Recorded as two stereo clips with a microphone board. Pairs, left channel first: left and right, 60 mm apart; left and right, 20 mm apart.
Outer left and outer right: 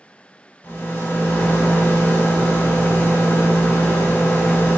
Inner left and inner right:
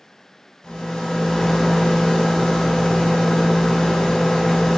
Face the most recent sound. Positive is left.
turn(degrees=35)  # may be behind; listen again after turning